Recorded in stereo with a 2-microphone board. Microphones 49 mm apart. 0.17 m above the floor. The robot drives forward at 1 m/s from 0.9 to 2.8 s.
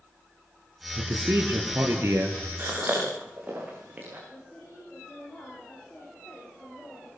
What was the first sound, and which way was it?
A man speaking, 70° right (ahead or behind).